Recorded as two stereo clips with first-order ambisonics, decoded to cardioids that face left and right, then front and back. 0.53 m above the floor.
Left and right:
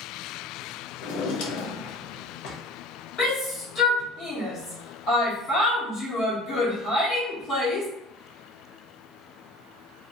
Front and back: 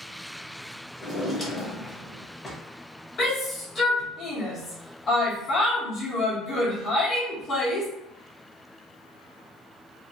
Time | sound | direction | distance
1.0 | a drawer | 75° left | 0.7 m
3.2 | a shout | 55° left | 1.1 m